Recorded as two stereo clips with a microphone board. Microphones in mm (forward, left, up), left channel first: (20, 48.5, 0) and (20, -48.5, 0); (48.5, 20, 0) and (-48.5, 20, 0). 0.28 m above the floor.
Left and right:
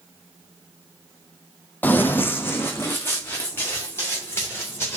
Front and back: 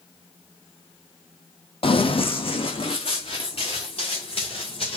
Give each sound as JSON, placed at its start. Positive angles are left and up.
{"t": 1.8, "sound": "running footsteps", "azimuth_deg": 20, "distance_m": 0.6}